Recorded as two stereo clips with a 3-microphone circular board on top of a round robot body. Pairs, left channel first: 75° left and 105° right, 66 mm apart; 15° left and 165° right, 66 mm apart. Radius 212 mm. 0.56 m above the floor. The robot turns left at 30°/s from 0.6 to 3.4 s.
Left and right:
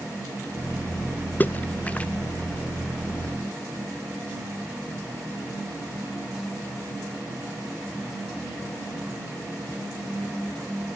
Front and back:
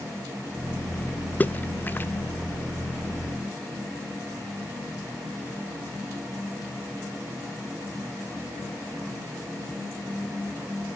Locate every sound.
1.4 s a splash: 50° left, 0.9 m; by 2.1 s 30° left, 0.9 m